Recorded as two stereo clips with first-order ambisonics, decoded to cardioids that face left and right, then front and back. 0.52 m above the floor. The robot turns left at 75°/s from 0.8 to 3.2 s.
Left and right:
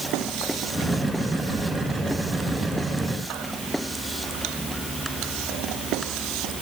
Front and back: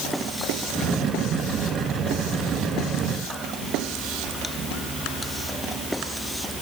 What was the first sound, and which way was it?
Only background noise.